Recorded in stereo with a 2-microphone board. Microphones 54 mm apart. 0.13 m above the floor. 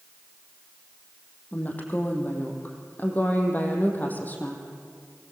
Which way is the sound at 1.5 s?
30° left (ahead or behind).